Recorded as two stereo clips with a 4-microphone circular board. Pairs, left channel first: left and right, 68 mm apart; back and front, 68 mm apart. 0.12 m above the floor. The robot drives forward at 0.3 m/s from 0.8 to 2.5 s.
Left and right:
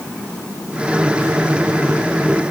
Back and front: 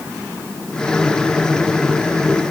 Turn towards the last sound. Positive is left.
No sound to turn to.